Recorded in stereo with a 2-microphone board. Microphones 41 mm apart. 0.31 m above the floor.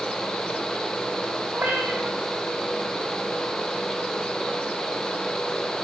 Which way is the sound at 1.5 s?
50° right (ahead or behind).